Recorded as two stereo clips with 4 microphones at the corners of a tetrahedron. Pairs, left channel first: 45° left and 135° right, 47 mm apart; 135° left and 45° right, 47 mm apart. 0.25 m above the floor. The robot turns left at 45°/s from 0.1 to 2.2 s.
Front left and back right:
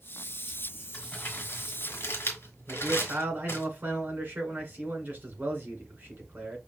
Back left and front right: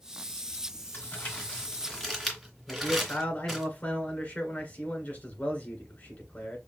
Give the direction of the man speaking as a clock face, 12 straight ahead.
6 o'clock.